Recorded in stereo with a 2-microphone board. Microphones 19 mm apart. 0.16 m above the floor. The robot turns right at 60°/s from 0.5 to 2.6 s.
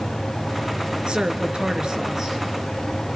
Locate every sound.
1.1 s a woman speaking: 105° right, 3 m; by 2.4 s 20° right, 3 m